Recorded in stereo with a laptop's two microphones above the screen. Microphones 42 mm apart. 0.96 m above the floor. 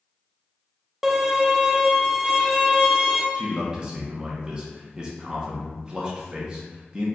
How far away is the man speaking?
About 0.8 m.